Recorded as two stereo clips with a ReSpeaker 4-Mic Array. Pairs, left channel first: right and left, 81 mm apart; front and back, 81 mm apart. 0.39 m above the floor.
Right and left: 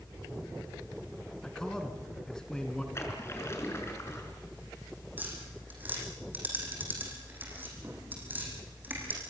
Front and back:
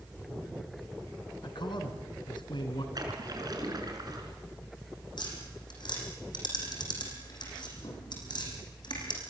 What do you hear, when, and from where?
1.4 s a man speaking: 10° right, 3.5 m
3.0 s a splash: 145° right, 4.5 m
5.2 s tapping: 25° left, 6.5 m